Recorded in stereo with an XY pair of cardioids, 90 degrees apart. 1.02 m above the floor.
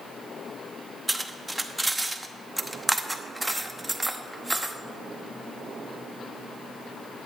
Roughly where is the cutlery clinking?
Ahead.